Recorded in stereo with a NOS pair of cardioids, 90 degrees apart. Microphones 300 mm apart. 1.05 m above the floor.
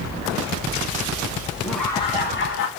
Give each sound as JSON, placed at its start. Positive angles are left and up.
{"t": 1.6, "sound": "laughter", "azimuth_deg": -5, "distance_m": 1.0}